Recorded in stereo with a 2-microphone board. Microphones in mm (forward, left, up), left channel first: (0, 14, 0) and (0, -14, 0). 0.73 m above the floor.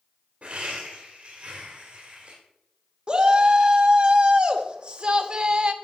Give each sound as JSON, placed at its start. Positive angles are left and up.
{"t": 0.4, "sound": "laughter", "side_deg": -45, "distance_m": 2.0}
{"t": 3.1, "sound": "a shout", "side_deg": -35, "distance_m": 1.3}